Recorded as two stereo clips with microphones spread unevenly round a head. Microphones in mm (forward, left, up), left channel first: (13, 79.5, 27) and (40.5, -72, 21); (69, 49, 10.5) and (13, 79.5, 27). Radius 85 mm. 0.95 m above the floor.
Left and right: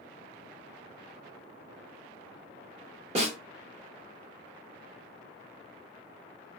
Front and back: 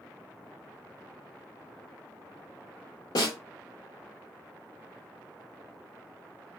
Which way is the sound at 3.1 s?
35° right.